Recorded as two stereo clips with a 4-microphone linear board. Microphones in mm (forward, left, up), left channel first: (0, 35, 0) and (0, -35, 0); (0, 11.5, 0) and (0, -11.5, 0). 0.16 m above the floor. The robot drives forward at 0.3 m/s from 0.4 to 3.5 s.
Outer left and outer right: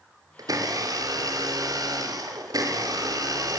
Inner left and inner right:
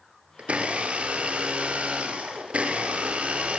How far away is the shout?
No shout in this recording.